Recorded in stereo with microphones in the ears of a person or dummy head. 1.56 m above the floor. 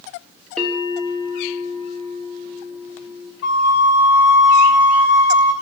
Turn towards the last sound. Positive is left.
turn(degrees=65)  # may be behind; listen again after turning